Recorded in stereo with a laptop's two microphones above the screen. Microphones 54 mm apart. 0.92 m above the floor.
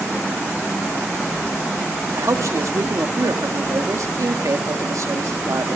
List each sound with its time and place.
2.2 s a man speaking: 70° right (ahead or behind), 1.6 m